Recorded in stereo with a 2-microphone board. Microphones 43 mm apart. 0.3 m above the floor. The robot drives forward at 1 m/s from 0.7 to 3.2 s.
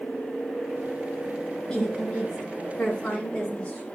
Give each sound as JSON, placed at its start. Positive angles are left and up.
{"t": 1.7, "sound": "a woman speaking", "side_deg": 20, "distance_m": 1.6}